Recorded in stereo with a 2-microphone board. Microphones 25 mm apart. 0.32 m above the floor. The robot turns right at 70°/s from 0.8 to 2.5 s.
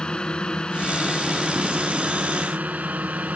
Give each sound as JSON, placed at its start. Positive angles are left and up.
{"t": 0.0, "sound": "a drone", "azimuth_deg": 145}